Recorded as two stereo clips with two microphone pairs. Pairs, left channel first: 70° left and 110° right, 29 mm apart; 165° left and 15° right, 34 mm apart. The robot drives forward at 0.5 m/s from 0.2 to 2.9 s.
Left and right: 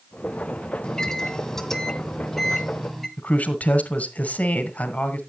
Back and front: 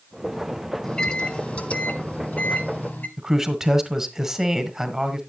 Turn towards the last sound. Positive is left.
turn(degrees=60)